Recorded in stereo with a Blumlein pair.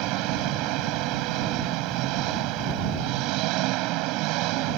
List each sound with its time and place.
0.0 s an engine running: 40° right